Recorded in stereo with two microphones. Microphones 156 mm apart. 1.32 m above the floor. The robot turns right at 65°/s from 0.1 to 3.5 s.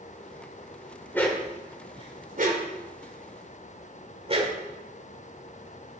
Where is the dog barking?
15° left (ahead or behind), 2 m; by 4.5 s 40° right (ahead or behind), 2 m.